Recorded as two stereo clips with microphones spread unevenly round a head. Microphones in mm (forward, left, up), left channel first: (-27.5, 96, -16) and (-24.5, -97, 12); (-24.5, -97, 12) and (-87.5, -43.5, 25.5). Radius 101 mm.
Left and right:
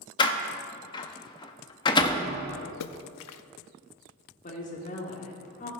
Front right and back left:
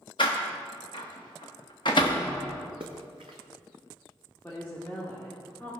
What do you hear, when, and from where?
0.2 s a door slam: 20° left, 0.6 m
2.8 s a splash: 80° left, 0.6 m
4.4 s a woman speaking: 40° left, 2 m